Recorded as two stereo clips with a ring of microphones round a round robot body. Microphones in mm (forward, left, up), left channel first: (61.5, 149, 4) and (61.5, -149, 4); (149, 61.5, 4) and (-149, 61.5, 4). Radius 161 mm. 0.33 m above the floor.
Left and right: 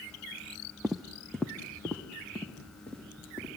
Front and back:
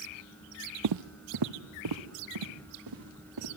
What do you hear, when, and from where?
0.8 s footsteps: straight behind, 0.7 m; by 3.5 s 175° left, 5 m